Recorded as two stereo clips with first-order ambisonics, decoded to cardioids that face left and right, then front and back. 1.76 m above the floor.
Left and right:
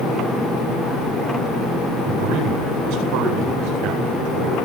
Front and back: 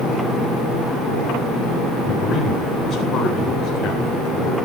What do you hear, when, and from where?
2.1 s a man speaking: 65° right, 9 m